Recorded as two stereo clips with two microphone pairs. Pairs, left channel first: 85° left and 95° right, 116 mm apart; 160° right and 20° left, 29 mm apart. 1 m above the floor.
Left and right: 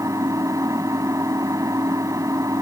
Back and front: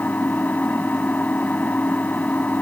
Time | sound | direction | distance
0.0 | an engine running | 155° right | ?